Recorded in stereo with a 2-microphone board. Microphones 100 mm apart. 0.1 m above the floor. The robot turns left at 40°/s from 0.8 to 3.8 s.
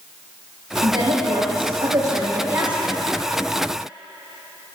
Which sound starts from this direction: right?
A woman speaking, at 0.8 s.